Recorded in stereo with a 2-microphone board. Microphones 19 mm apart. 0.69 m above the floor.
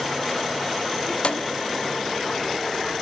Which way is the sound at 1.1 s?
70° left (ahead or behind).